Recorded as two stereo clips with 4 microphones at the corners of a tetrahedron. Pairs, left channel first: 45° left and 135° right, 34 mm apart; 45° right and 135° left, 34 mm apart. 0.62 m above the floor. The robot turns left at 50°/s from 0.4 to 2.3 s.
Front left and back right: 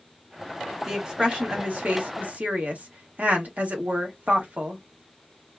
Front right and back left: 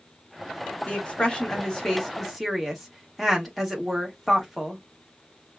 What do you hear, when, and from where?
0.9 s a woman speaking: 65° right, 1.3 m; by 4.8 s 135° right, 1.3 m